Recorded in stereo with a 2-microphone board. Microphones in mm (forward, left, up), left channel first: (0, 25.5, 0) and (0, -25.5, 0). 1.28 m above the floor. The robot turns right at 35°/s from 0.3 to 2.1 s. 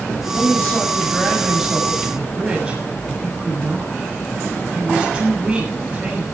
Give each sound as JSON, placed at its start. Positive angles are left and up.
{"t": 0.3, "sound": "a woman speaking", "azimuth_deg": 135, "distance_m": 7.0}